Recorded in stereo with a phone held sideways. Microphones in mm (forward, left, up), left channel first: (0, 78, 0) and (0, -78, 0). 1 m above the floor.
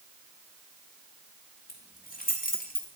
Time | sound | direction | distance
1.7 | keys jangling | 65° left (ahead or behind) | 2.0 m